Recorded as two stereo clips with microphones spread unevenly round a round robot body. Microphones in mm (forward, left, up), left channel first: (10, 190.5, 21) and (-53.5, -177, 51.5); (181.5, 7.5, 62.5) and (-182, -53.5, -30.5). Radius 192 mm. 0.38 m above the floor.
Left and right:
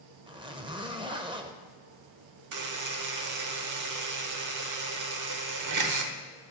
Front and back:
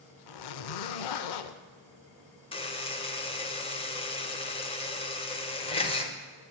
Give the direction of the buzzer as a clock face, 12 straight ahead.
3 o'clock.